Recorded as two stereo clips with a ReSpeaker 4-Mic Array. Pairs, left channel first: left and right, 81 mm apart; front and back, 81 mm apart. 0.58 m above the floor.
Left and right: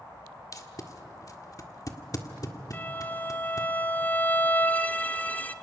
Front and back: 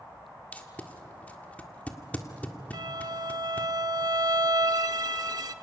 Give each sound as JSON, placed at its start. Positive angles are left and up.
{"t": 0.5, "sound": "tape being pulled", "azimuth_deg": 65, "distance_m": 1.6}
{"t": 2.7, "sound": "a violin", "azimuth_deg": 155, "distance_m": 0.9}